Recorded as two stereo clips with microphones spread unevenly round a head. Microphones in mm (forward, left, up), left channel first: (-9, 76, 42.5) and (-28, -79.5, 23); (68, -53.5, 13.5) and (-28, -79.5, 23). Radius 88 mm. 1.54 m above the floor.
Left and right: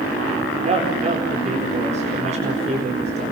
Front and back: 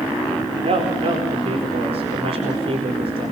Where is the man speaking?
145° right, 4 m.